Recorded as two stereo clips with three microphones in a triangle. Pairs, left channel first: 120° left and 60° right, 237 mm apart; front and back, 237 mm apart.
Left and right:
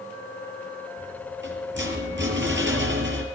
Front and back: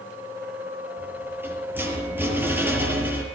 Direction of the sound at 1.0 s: 100° right.